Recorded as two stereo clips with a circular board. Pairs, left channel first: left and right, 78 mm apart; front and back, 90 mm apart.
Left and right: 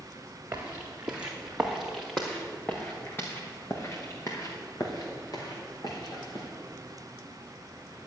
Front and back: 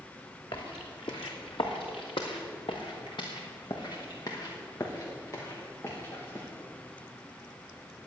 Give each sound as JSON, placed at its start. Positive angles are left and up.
{"t": 0.5, "sound": "footsteps", "azimuth_deg": -25, "distance_m": 2.5}